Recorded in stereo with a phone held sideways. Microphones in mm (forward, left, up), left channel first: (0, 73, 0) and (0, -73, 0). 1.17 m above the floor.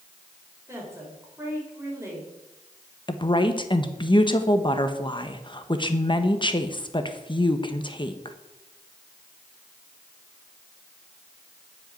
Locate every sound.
0.7 s a woman speaking: 20° right (ahead or behind), 5.5 m
3.1 s a woman speaking: 35° left (ahead or behind), 1.1 m